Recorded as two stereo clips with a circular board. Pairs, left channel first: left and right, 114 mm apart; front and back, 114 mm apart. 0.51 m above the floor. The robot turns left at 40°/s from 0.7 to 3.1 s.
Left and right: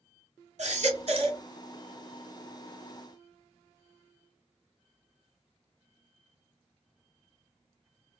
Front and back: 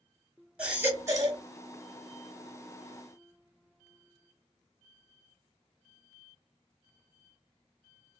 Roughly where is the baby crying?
Right.